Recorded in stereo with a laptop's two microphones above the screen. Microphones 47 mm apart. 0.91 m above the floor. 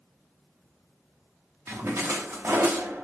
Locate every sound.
1.7 s a splash: 70° right (ahead or behind), 1.4 m